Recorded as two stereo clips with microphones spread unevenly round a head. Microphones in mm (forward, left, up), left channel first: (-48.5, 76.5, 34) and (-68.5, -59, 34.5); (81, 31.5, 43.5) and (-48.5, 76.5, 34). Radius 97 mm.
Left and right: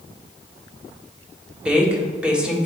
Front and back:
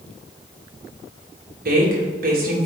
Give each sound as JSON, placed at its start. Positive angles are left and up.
{"t": 1.6, "sound": "a woman speaking", "azimuth_deg": 180, "distance_m": 1.9}